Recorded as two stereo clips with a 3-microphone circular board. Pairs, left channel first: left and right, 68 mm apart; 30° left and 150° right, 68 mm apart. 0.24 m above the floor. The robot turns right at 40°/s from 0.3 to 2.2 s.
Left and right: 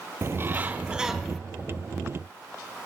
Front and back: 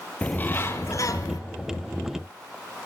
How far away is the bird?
About 1.0 m.